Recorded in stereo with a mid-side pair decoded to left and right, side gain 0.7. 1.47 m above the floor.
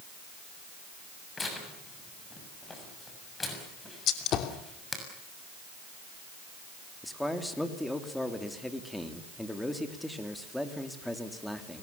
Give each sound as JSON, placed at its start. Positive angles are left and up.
{"t": 1.4, "sound": "tearing paper", "azimuth_deg": 15, "distance_m": 7.0}
{"t": 4.1, "sound": "a gunshot", "azimuth_deg": 50, "distance_m": 2.5}
{"t": 7.0, "sound": "a man speaking", "azimuth_deg": 5, "distance_m": 3.5}